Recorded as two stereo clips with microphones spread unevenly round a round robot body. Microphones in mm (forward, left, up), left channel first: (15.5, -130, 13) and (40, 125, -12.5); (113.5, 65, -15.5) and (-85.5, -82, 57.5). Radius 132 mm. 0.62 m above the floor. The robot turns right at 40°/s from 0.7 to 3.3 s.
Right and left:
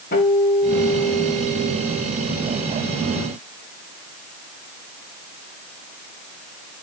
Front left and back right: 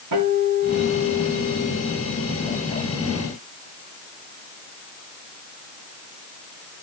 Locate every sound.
0.1 s a guitar: 155° right, 8.5 m; by 2.1 s 100° right, 8.5 m